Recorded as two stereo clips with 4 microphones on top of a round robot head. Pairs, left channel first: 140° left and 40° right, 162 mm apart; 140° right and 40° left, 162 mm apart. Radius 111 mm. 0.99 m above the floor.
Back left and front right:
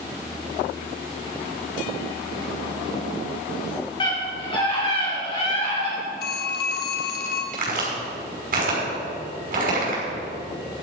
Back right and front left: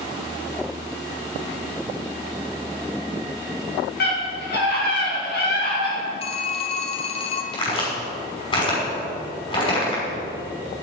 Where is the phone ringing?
165° left, 1.4 m.